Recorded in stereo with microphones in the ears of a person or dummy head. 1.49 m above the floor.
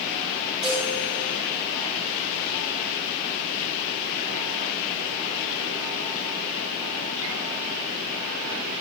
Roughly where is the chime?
Centre.